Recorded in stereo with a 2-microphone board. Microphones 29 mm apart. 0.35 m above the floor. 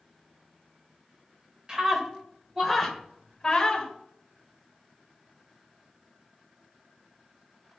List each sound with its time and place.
1.7 s a scream: 20° right (ahead or behind), 1.7 m; by 3.9 s 25° left (ahead or behind), 1.8 m